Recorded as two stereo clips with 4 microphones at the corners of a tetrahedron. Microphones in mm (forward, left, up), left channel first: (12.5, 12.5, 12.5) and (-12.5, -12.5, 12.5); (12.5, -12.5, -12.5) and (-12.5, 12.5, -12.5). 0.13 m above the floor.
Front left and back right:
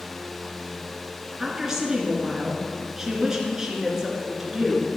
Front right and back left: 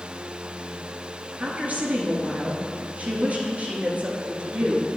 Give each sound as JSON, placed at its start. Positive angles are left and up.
{"t": 1.4, "sound": "a woman speaking", "azimuth_deg": 155, "distance_m": 2.0}